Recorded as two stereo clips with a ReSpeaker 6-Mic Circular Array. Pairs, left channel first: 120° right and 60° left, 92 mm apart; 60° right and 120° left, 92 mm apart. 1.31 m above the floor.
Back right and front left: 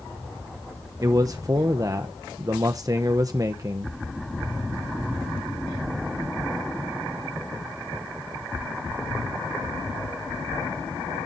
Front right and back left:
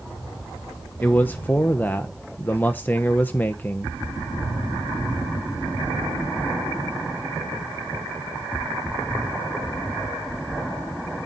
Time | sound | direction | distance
1.0 | a man speaking | 10° left | 1.0 m